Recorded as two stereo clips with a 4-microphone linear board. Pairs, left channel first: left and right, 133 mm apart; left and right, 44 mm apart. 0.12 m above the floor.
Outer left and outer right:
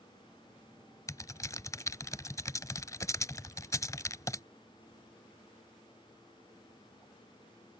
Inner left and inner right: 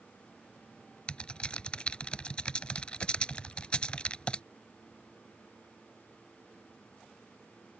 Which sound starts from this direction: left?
Typing on a keyboard, at 1.1 s.